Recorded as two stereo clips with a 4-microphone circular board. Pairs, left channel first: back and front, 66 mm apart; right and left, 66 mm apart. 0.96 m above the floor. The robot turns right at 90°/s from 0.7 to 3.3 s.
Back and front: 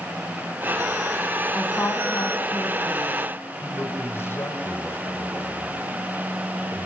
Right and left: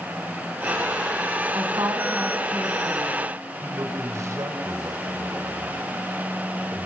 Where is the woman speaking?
95° left, 7 m; by 3.2 s 115° right, 7 m.